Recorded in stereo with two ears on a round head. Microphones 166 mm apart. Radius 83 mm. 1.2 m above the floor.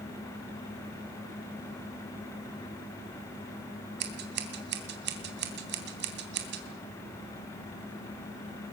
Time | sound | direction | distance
4.0 | scissors | 60° right (ahead or behind) | 3 m